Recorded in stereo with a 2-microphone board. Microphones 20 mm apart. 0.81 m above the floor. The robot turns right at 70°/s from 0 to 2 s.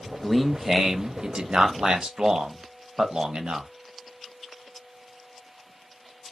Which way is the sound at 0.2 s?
160° left.